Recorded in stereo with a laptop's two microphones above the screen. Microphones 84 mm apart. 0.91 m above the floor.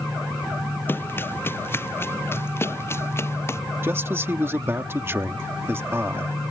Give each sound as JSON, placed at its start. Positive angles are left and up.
{"t": 0.9, "sound": "running footsteps", "side_deg": 25}
{"t": 3.8, "sound": "a man speaking", "side_deg": -30}